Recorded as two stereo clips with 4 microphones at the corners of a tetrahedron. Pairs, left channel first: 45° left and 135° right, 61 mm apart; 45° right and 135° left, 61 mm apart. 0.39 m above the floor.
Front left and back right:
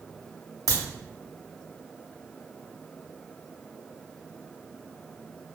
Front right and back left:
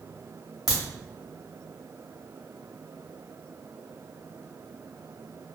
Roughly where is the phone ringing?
I don't hear a phone ringing.